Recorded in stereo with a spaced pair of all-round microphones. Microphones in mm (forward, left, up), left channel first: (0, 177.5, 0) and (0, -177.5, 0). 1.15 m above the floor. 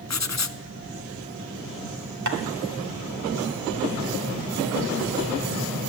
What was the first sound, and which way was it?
Writing, 50° left (ahead or behind).